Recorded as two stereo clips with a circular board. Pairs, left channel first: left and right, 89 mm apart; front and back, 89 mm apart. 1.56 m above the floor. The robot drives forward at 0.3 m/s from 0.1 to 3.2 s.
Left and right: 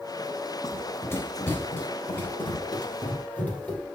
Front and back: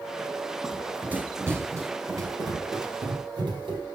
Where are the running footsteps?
105° left, 1.7 m; by 3.9 s 165° left, 3.5 m.